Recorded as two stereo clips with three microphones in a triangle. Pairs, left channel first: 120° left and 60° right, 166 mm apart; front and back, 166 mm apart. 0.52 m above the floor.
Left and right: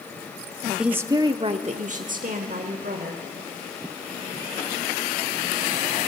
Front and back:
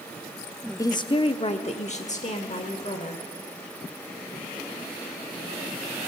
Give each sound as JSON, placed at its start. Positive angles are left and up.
{"t": 0.8, "sound": "a woman speaking", "azimuth_deg": 20, "distance_m": 0.6}